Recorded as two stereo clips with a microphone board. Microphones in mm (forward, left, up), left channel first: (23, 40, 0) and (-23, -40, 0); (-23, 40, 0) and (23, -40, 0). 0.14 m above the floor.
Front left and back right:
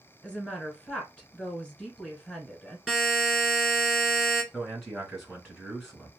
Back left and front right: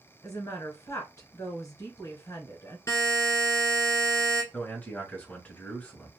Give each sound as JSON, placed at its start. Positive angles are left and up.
{"t": 0.2, "sound": "a woman speaking", "azimuth_deg": 135, "distance_m": 1.3}
{"t": 2.9, "sound": "a buzzer", "azimuth_deg": 155, "distance_m": 1.3}
{"t": 4.5, "sound": "a man speaking", "azimuth_deg": 145, "distance_m": 1.5}